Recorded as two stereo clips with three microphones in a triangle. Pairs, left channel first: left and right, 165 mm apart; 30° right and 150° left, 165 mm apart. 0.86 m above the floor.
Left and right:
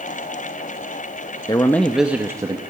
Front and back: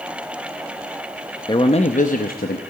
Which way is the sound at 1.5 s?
30° left.